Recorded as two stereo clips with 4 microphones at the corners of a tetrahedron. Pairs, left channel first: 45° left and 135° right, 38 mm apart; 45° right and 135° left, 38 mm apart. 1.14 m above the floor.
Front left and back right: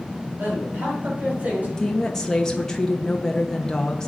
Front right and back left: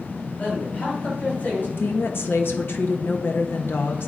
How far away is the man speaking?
About 5 m.